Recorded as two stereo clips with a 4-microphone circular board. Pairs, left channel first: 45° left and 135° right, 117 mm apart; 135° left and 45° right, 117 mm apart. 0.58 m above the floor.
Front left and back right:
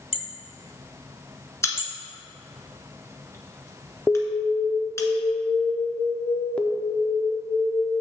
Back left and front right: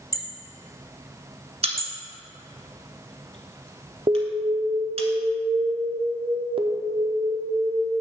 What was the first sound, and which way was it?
Hammering, 80° left.